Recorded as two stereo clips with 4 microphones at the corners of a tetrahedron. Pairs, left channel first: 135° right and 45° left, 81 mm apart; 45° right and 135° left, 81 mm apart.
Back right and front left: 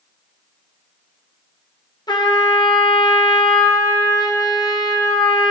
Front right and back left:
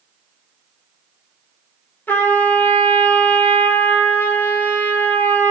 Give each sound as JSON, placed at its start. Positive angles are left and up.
{"t": 2.1, "sound": "a trumpet", "azimuth_deg": -110, "distance_m": 1.2}